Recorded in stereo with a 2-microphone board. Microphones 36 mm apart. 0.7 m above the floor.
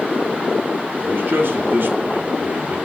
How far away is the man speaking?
About 2.5 m.